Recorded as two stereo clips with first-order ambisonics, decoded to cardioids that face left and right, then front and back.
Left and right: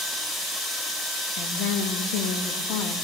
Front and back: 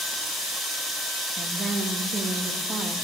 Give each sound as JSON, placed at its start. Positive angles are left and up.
{"t": 1.4, "sound": "a woman speaking", "azimuth_deg": 105, "distance_m": 1.6}